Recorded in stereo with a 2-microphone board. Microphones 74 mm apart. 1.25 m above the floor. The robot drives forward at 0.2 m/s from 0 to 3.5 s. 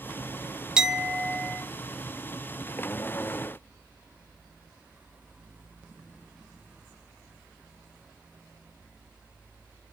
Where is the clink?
10° right (ahead or behind), 0.5 m.